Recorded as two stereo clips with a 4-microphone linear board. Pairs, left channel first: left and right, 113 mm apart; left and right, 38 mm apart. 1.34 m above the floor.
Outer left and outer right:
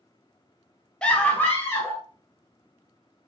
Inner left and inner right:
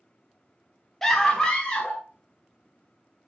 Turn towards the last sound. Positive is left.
turn(degrees=20)  # may be behind; listen again after turning